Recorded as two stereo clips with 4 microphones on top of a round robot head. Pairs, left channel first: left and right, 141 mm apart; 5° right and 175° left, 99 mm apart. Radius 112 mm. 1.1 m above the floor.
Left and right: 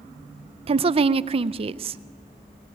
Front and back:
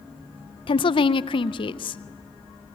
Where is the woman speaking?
40° right, 0.5 m.